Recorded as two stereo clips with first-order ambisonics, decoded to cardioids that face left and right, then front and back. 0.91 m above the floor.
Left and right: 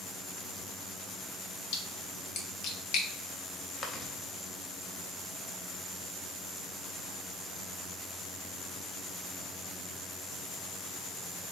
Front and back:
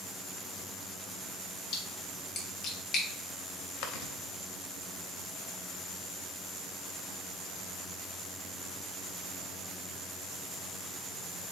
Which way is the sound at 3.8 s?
20° left.